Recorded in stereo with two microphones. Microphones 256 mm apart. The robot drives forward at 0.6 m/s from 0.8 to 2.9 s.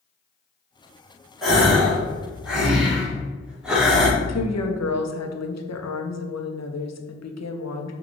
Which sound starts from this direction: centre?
A gasp, at 1.4 s.